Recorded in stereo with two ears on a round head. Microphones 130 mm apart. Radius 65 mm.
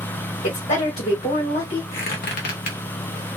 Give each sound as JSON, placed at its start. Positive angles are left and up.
{"t": 0.4, "sound": "a woman speaking", "side_deg": 60, "distance_m": 1.6}
{"t": 1.9, "sound": "a squeak", "side_deg": 65, "distance_m": 1.1}